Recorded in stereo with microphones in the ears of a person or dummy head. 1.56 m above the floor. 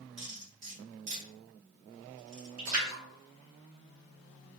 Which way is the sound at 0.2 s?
40° right (ahead or behind).